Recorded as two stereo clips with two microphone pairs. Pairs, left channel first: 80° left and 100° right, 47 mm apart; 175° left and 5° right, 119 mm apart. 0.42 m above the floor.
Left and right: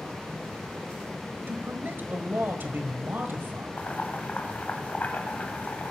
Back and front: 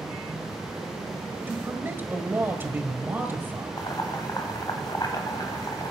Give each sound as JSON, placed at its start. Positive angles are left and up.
{"t": 1.5, "sound": "a man speaking", "azimuth_deg": -70, "distance_m": 1.5}
{"t": 3.8, "sound": "boiling", "azimuth_deg": 125, "distance_m": 2.0}